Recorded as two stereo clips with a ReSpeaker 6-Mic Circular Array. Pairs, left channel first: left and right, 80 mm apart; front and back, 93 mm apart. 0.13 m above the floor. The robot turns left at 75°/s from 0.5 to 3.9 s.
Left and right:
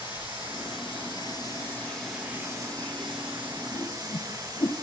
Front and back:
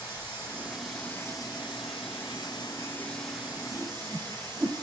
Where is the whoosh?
120° left, 1.5 m; by 4.7 s 105° left, 1.5 m.